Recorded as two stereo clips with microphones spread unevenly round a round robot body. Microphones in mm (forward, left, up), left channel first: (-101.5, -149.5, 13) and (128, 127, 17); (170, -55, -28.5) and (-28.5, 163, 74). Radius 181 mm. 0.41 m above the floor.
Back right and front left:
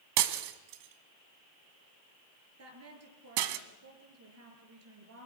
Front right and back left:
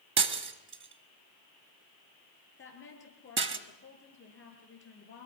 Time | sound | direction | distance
0.2 | breaking glass | 80° left | 1.4 m
2.6 | a woman speaking | straight ahead | 7 m